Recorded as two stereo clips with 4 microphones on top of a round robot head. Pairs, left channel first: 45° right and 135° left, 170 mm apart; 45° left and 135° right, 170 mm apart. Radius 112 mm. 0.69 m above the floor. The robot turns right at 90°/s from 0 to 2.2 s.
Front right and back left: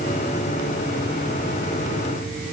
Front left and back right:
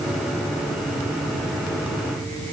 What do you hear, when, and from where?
Only background noise.